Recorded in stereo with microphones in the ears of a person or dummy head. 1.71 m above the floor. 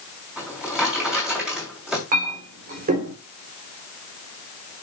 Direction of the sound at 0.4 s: Centre (ahead or behind).